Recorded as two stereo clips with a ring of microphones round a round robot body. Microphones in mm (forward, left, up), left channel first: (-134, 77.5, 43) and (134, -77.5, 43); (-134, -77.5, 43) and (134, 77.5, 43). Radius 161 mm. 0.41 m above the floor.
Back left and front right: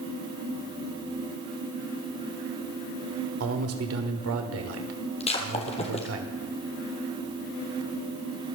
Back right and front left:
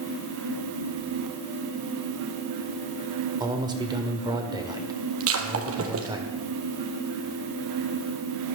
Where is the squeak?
I don't hear a squeak.